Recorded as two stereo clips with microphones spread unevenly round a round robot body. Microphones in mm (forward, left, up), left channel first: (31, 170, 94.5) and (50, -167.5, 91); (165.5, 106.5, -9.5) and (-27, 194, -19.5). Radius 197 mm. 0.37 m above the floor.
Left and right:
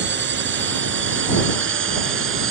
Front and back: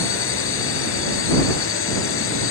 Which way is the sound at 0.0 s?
30° right.